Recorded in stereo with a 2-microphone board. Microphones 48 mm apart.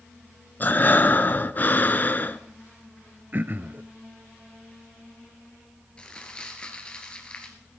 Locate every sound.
0.6 s breathing: 40° left (ahead or behind), 0.6 m
3.3 s throat clearing: 45° right (ahead or behind), 0.5 m
6.0 s crumpling: 20° left (ahead or behind), 2 m